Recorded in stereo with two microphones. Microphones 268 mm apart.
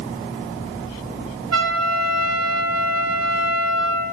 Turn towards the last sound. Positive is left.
turn(degrees=-70)  # may be behind; listen again after turning